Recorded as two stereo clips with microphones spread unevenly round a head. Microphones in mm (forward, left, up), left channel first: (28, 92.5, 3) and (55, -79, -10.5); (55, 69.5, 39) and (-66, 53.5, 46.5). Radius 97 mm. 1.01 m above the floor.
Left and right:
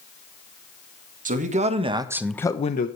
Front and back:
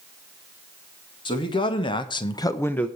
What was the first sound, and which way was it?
A man speaking, 45° right.